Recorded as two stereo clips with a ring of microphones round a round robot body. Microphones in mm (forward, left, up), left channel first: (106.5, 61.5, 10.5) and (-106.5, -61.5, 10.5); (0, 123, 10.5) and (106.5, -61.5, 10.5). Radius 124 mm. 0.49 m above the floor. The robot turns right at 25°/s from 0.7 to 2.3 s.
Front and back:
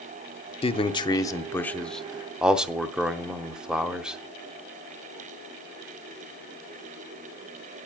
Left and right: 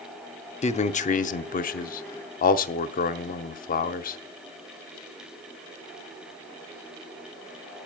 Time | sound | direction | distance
0.6 | a man speaking | 85° left | 0.8 m